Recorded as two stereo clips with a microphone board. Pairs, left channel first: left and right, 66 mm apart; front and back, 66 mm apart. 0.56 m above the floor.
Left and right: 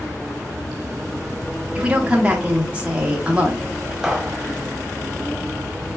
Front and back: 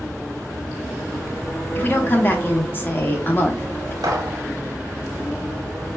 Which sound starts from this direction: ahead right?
A woman speaking, at 1.8 s.